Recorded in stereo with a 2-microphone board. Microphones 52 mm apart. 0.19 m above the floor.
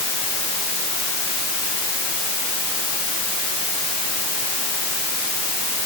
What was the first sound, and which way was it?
Only background noise.